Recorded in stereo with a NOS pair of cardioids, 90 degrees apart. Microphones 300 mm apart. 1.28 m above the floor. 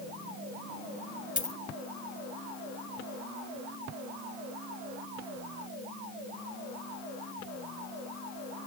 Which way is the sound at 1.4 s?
25° left.